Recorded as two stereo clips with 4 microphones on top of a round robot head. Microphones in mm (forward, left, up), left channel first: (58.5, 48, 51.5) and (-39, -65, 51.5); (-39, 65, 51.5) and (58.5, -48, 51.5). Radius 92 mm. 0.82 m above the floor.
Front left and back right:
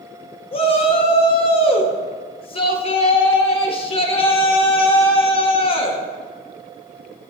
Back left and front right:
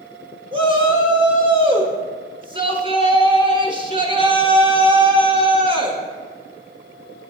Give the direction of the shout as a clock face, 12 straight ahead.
12 o'clock.